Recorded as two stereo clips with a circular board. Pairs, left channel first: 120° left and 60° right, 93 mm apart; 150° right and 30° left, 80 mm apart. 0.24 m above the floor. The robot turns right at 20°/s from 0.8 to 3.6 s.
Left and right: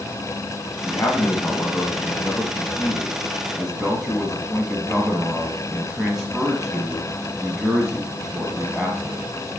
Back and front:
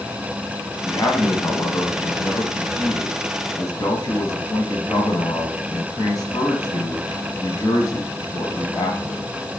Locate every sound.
0.8 s a man speaking: 160° left, 1.5 m; by 9.2 s 145° right, 1.5 m